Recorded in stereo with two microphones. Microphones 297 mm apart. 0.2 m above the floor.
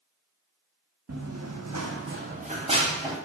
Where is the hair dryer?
I don't hear a hair dryer.